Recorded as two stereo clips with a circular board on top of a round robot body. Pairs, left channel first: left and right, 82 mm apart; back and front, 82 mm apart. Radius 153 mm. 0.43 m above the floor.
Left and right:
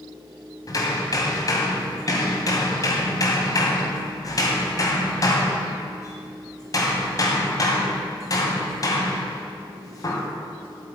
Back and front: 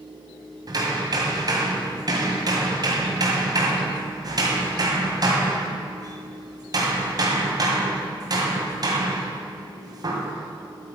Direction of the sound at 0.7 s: 40° left.